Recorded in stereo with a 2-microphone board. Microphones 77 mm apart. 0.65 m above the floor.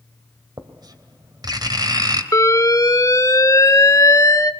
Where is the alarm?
45° left (ahead or behind), 1.2 m.